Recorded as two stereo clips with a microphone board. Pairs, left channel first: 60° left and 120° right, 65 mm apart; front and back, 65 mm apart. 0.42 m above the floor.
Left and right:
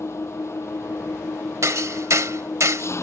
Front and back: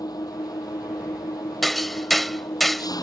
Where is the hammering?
90° right.